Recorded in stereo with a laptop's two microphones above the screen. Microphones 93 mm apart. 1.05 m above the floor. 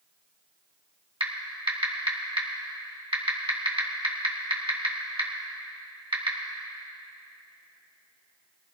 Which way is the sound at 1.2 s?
70° right (ahead or behind).